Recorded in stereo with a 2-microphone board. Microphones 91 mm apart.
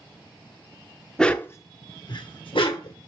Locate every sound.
1.2 s a dog barking: 5° left (ahead or behind), 0.6 m; by 3.0 s 75° left (ahead or behind), 1.3 m